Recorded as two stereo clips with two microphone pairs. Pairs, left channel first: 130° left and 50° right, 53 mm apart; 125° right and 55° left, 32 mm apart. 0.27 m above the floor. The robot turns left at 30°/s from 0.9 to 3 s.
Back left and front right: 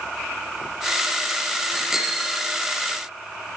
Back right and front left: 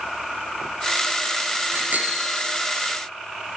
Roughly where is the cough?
I don't hear a cough.